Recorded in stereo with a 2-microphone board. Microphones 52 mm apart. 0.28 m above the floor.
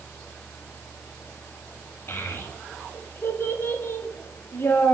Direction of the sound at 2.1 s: 45° left (ahead or behind).